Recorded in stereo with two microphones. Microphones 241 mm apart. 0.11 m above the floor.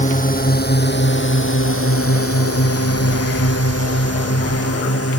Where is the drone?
30° left (ahead or behind); by 5.2 s 70° left (ahead or behind).